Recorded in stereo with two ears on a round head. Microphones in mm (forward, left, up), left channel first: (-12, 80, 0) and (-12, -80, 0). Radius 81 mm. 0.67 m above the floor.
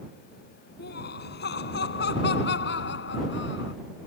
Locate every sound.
0.8 s laughter: 65° left (ahead or behind); by 3.7 s 75° left (ahead or behind)